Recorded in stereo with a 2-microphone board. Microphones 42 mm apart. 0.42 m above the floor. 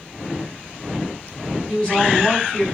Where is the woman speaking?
25° left (ahead or behind), 4 m.